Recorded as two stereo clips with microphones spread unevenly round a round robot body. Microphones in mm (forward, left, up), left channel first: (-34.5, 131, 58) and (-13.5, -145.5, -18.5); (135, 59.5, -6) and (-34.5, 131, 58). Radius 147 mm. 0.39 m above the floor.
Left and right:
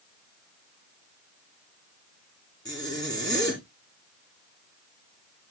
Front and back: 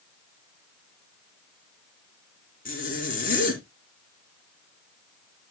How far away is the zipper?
About 3 m.